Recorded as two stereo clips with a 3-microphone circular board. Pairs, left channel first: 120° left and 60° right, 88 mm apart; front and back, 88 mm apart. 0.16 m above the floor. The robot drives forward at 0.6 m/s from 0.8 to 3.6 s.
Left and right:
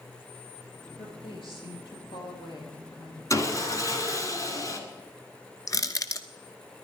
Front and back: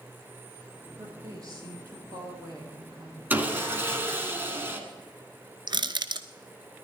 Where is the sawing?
125° left, 1.9 m; by 4.8 s 130° left, 1.9 m.